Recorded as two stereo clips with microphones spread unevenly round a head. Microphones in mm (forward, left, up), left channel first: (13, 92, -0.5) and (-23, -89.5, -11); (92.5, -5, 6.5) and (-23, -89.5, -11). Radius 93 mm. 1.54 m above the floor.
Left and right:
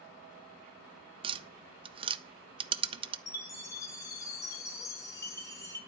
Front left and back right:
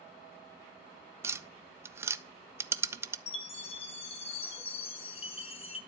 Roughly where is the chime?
Ahead.